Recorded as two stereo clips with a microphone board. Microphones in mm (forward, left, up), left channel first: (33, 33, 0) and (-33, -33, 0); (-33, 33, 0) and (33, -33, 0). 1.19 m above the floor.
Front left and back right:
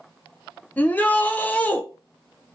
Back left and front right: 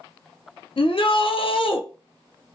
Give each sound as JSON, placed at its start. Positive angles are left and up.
{"t": 0.8, "sound": "a shout", "azimuth_deg": 120, "distance_m": 0.5}